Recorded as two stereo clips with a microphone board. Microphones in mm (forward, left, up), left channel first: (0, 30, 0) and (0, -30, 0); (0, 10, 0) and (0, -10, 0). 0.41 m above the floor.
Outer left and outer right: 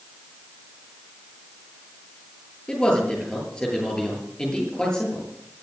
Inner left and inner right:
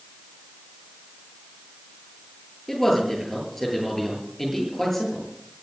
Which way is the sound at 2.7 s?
15° left (ahead or behind).